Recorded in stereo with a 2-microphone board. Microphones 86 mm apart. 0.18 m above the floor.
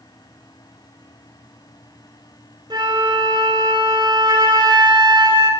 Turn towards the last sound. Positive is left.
turn(degrees=-60)  # may be behind; listen again after turning